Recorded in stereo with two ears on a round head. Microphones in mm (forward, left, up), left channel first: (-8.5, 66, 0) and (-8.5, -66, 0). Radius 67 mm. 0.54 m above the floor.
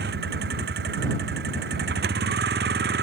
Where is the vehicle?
70° right (ahead or behind).